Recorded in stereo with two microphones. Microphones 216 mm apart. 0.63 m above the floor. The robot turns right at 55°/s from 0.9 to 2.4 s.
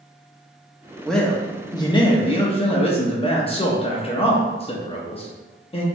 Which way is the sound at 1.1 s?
Centre (ahead or behind).